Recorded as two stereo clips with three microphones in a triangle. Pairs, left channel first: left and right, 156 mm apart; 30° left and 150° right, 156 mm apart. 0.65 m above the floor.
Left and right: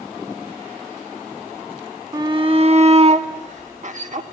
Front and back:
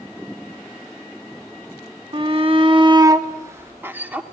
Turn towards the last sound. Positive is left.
turn(degrees=-70)